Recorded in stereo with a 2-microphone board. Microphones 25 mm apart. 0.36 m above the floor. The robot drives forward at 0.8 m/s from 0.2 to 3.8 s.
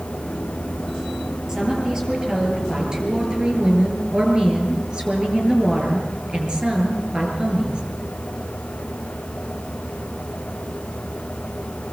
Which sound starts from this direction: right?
A woman speaking, at 1.5 s.